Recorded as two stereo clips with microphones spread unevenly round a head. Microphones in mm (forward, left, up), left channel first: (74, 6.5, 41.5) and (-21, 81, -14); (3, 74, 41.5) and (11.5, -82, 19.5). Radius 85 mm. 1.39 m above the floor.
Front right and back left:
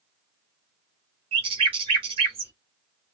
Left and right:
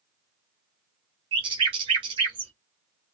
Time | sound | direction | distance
1.3 | a bird | 145° right | 0.9 m